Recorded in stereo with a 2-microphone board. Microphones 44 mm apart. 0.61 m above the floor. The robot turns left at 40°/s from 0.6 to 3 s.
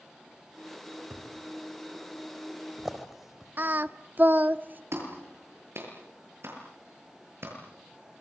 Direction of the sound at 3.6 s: 45° right (ahead or behind).